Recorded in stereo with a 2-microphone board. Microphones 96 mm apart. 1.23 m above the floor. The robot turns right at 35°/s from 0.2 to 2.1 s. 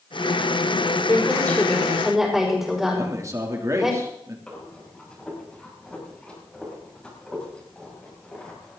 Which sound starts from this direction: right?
A man speaking, at 2.9 s.